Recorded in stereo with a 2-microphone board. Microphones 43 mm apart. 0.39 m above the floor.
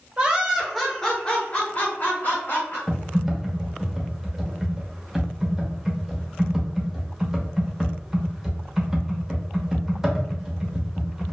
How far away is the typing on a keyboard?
About 0.7 m.